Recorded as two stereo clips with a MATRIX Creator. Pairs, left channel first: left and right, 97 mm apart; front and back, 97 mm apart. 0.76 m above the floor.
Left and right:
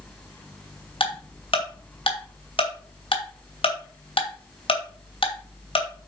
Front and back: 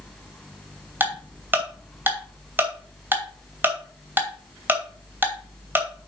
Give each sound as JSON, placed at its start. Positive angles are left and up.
{"t": 1.0, "sound": "ticking", "azimuth_deg": 110, "distance_m": 2.5}